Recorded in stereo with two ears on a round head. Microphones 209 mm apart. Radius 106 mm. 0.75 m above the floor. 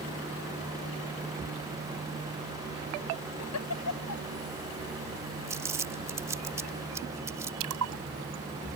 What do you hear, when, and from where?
3.4 s a giggle: 80° left
5.5 s crumpling: 15° right (ahead or behind)
7.6 s a splash: 70° right (ahead or behind)